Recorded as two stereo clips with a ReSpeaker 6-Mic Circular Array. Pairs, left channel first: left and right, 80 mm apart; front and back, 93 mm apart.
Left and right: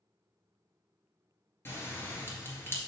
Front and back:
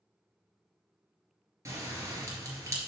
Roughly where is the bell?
Behind left.